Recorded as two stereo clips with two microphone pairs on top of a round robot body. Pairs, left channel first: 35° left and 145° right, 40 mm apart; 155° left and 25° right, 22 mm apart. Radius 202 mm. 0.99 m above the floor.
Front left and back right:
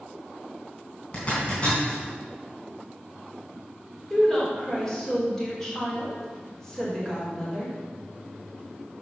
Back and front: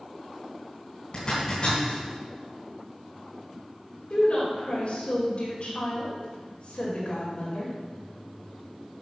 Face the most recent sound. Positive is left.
turn(degrees=115)